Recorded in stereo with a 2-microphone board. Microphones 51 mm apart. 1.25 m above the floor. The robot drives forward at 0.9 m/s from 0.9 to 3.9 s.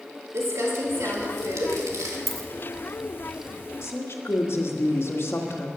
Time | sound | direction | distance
0.3 | crumpling | 60° right (ahead or behind) | 2.5 m
2.3 | a dropped coin | 5° left (ahead or behind) | 1.6 m
3.8 | a woman speaking | 55° left (ahead or behind) | 1.8 m